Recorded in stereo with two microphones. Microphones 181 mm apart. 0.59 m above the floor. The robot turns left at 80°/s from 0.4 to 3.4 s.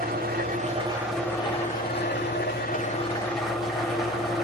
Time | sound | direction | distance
0.0 | an engine running | 120° right | 0.7 m